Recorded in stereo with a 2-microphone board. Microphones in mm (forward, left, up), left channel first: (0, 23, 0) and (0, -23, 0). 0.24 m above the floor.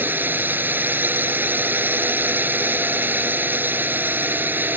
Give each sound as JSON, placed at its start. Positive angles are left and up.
{"t": 0.0, "sound": "a drone", "side_deg": -45}